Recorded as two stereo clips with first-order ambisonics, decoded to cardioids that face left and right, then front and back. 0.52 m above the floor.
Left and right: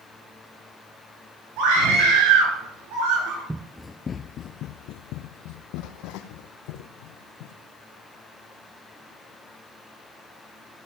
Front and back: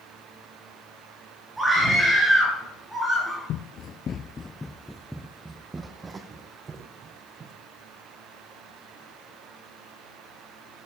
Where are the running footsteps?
15° right, 0.6 m; by 7.5 s 115° left, 2.5 m.